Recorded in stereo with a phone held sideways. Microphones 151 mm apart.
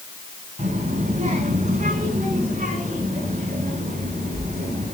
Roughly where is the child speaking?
Right.